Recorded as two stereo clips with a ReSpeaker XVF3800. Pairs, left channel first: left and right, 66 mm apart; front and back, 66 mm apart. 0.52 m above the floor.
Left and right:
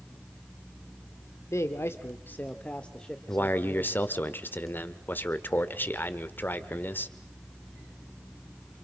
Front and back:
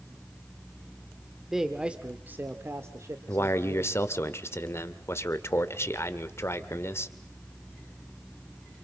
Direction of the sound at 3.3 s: 40° left.